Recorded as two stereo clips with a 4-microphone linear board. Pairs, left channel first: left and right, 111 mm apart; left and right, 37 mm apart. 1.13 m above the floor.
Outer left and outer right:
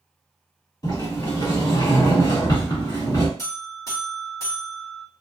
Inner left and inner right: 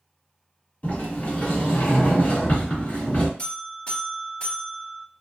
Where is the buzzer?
30° left (ahead or behind), 1.3 m.